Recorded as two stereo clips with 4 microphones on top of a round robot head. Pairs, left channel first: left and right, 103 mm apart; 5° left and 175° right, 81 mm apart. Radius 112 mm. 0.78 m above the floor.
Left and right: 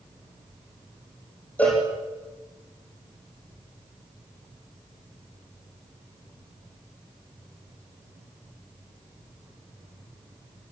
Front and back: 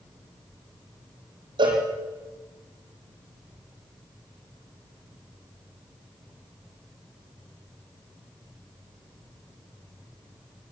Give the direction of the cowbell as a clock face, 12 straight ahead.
6 o'clock.